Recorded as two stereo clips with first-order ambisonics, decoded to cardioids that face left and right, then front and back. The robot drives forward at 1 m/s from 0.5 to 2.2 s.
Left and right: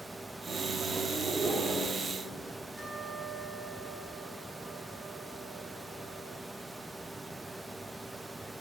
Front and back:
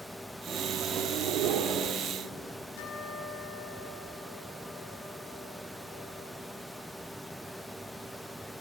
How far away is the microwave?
About 1.0 m.